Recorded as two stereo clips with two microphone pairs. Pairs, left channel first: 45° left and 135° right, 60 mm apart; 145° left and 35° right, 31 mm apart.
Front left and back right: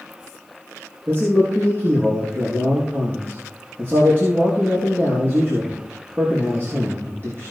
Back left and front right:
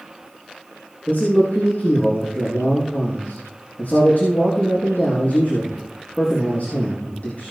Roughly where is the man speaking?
Behind.